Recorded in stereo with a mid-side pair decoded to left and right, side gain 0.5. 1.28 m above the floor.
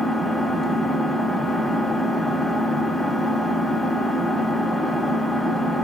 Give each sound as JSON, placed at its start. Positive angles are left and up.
{"t": 0.0, "sound": "an engine running", "azimuth_deg": -10, "distance_m": 1.0}